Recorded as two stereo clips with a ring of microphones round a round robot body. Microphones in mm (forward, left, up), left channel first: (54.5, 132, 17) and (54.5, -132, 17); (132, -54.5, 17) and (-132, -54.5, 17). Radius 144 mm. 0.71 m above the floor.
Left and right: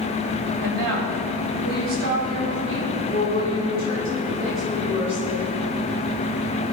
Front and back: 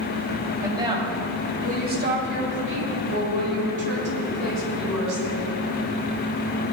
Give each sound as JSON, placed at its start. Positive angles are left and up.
{"t": 0.6, "sound": "a woman speaking", "azimuth_deg": -105, "distance_m": 5.0}